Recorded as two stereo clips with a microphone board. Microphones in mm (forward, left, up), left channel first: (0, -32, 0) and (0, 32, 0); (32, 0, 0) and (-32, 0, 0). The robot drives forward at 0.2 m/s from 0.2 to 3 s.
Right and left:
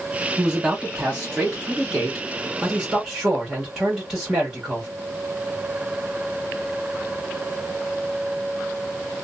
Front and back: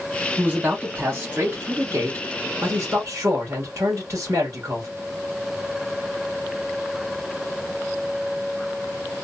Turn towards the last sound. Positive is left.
turn(degrees=175)